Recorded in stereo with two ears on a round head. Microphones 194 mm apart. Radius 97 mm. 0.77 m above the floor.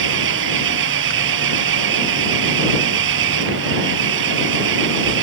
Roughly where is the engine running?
Right.